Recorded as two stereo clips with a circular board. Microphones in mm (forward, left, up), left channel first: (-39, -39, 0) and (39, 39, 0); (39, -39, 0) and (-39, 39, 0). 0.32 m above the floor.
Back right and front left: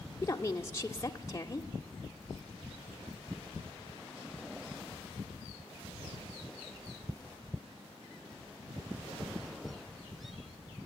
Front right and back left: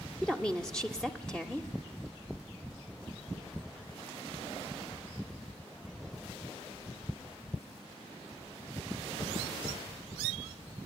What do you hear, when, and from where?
0.2 s a woman speaking: 120° right, 0.9 m